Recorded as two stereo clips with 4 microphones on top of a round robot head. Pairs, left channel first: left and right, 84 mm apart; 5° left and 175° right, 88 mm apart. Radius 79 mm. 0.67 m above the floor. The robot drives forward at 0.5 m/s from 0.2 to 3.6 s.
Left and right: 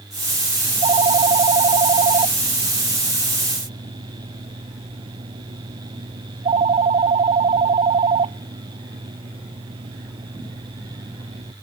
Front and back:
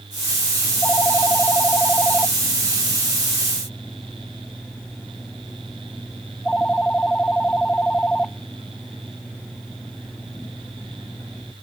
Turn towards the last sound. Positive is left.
turn(degrees=-75)